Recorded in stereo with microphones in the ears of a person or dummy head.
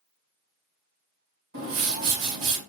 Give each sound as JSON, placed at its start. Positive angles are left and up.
{"t": 1.5, "sound": "a whoosh", "side_deg": -65, "distance_m": 2.0}